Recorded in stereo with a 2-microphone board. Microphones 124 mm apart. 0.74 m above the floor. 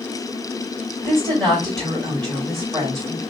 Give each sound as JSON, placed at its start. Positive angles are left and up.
{"t": 1.0, "sound": "a woman speaking", "side_deg": 5, "distance_m": 3.0}